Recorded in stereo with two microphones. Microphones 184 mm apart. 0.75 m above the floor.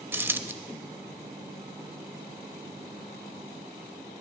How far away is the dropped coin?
About 0.5 m.